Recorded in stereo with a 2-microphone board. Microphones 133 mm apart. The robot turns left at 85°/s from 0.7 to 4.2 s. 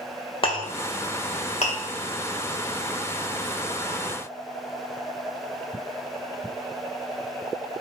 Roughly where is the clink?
Left.